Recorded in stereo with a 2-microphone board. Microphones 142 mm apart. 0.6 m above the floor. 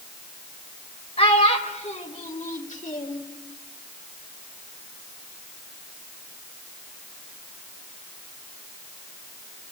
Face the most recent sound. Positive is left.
turn(degrees=65)  # may be behind; listen again after turning